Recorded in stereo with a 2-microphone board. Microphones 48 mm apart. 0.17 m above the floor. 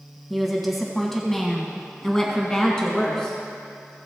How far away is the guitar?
No guitar in this recording.